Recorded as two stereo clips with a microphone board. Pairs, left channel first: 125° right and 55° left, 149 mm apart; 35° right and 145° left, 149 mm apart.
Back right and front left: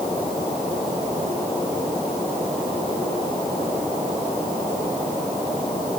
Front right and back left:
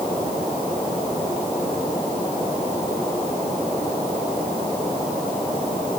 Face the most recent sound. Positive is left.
No sound to turn to.